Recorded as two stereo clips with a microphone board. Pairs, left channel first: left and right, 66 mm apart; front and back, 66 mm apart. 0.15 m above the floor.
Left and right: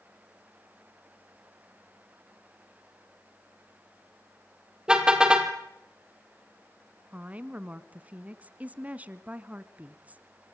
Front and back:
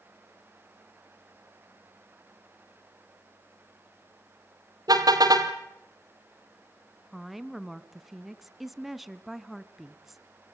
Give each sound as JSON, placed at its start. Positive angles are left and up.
{"t": 4.9, "sound": "a car horn", "azimuth_deg": -165, "distance_m": 2.5}
{"t": 7.1, "sound": "a woman speaking", "azimuth_deg": -95, "distance_m": 1.3}